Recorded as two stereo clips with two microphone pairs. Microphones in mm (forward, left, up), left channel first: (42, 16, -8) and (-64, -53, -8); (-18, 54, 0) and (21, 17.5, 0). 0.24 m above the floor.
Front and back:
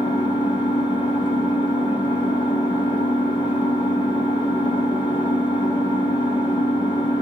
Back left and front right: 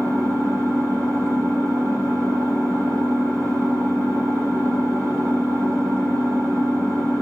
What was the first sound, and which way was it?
An engine running, 20° right.